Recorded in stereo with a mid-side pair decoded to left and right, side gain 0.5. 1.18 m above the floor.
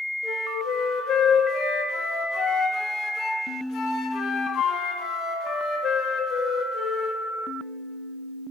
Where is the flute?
65° left, 1.5 m.